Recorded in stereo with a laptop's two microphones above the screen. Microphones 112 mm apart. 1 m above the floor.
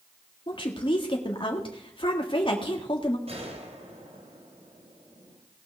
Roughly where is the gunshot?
Right.